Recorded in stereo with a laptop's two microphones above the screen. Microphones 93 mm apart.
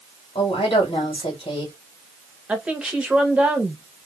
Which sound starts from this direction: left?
A woman speaking, at 0.3 s.